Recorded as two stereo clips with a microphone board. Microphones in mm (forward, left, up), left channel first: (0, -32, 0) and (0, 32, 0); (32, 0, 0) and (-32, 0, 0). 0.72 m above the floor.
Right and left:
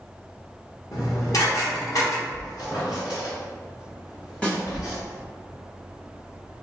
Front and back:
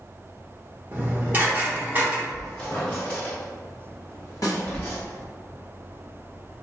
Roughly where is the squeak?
Right.